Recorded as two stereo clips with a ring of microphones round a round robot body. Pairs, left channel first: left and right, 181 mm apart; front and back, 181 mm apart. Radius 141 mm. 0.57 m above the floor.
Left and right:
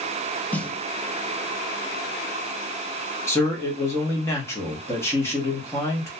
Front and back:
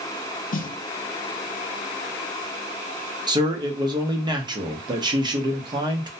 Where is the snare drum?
10° left, 0.5 m.